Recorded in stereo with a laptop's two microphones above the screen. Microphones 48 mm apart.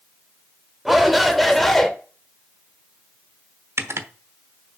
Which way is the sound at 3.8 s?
60° right (ahead or behind).